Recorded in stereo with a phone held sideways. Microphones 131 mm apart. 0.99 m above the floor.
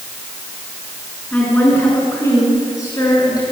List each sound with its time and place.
1.3 s a woman speaking: 10° left (ahead or behind), 9.5 m; by 3.4 s 30° left (ahead or behind), 9.5 m